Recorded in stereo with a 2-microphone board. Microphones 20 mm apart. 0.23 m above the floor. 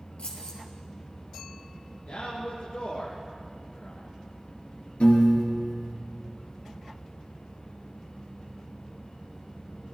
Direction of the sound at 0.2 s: 75° left (ahead or behind).